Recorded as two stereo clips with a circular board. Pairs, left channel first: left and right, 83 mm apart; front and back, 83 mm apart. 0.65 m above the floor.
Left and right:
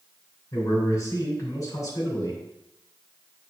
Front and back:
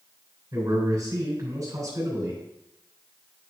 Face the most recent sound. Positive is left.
turn(degrees=130)